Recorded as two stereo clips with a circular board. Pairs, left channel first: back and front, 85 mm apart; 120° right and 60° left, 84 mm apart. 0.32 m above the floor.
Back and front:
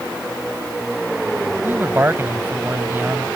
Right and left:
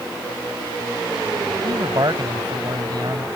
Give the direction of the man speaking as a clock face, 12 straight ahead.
10 o'clock.